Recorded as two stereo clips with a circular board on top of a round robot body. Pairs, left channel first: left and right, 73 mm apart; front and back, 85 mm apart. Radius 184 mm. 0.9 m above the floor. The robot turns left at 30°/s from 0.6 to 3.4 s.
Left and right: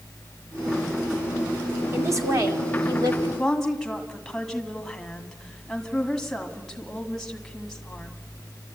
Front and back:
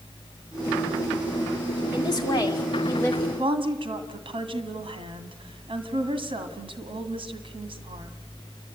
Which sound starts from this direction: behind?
A woman speaking, at 3.4 s.